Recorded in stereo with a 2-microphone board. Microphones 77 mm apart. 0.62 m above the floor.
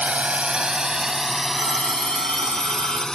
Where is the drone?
15° right (ahead or behind); by 3.1 s 10° left (ahead or behind).